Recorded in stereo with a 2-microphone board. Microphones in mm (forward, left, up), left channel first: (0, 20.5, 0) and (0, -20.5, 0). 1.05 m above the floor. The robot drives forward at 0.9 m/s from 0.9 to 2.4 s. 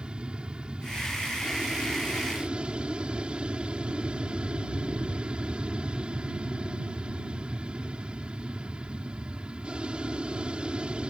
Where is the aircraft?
25° right (ahead or behind).